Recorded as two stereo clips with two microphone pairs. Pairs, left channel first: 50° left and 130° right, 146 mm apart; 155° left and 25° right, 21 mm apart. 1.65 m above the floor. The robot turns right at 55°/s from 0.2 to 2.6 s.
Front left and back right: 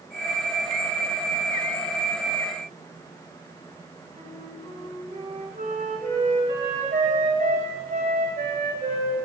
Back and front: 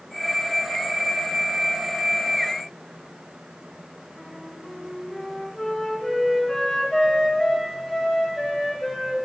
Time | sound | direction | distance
4.1 | a flute | 140° right | 2.0 m